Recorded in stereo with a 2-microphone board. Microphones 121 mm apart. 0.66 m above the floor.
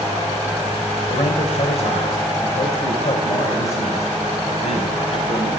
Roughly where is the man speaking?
Left.